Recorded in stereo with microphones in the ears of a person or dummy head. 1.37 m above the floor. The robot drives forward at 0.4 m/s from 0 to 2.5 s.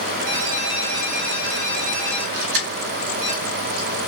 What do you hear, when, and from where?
0.3 s a ringtone: 65° right (ahead or behind), 1.2 m; by 3.3 s 40° right (ahead or behind), 1.6 m
2.3 s keys jangling: 70° right (ahead or behind), 1.3 m; by 3.9 s 65° right (ahead or behind), 1.3 m